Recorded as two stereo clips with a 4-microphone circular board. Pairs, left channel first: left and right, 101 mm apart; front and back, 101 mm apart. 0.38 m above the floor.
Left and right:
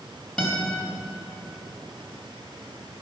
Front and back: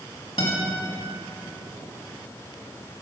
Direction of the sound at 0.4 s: 10° left.